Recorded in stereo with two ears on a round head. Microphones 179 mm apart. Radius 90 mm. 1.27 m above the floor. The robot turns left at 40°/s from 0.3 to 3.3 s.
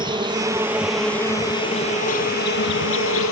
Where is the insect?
155° right; by 3.3 s 85° left.